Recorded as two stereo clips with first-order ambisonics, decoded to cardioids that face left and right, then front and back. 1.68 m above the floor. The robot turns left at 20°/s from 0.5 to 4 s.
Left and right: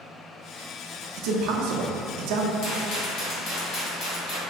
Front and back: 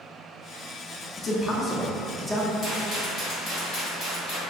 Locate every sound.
1.2 s a man speaking: 65° right, 0.6 m; by 2.5 s 90° right, 0.6 m
2.6 s a rattle: 80° left, 1.8 m; by 4.4 s 55° left, 1.8 m